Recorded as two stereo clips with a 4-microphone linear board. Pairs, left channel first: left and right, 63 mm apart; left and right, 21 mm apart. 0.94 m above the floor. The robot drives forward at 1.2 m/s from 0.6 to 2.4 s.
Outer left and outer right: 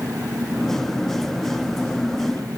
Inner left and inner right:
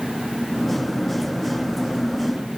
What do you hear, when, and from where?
0.0 s an engine running: 75° right (ahead or behind); by 2.6 s 80° right